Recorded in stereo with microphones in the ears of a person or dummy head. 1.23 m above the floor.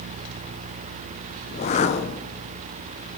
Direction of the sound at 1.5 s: 30° left (ahead or behind).